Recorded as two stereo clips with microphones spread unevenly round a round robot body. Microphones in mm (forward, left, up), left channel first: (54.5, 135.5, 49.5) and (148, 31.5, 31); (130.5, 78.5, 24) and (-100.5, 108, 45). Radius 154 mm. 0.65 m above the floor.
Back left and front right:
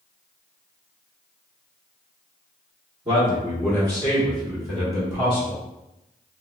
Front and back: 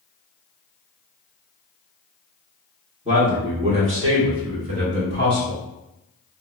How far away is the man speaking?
About 1.6 m.